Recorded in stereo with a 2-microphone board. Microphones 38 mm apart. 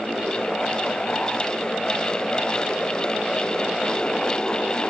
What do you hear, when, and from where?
Only background noise.